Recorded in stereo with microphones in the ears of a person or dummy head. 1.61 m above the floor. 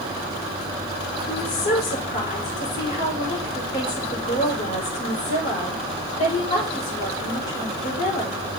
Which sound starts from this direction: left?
A woman speaking, at 1.3 s.